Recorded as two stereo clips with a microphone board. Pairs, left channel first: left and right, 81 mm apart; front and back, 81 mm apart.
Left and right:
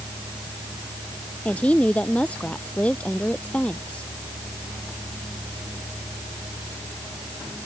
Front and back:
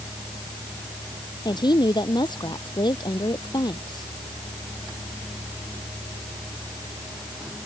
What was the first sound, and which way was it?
A woman speaking, 20° left.